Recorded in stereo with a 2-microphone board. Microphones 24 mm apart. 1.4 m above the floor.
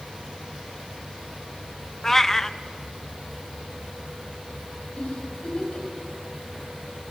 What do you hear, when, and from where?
2.0 s a cat meowing: 15° left (ahead or behind), 0.6 m
5.0 s a giggle: 60° left (ahead or behind), 7 m